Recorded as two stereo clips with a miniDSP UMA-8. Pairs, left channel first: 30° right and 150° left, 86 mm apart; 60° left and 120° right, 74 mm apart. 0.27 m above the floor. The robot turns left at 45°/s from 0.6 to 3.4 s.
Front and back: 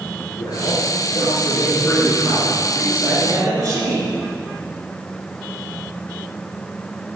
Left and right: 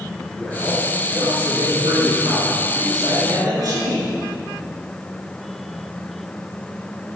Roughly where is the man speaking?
Ahead right.